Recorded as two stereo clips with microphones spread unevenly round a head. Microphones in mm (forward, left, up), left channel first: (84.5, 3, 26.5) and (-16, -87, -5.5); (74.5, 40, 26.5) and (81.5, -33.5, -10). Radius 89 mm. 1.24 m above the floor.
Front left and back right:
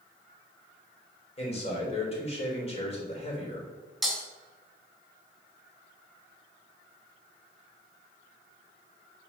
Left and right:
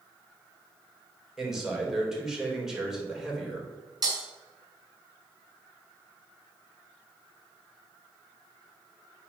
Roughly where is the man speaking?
Ahead.